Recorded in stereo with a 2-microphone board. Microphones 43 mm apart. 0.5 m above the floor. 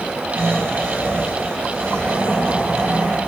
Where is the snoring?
80° right, 9 m.